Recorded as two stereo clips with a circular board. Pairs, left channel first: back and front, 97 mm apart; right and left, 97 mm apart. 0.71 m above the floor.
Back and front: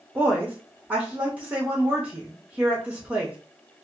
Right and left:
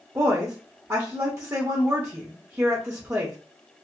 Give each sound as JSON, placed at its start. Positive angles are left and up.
{"t": 0.1, "sound": "a woman speaking", "azimuth_deg": 65, "distance_m": 0.7}